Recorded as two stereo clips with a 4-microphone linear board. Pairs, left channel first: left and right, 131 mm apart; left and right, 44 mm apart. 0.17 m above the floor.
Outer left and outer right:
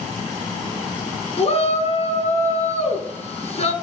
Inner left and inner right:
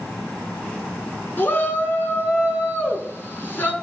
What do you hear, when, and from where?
1.4 s a shout: 55° left (ahead or behind), 1.9 m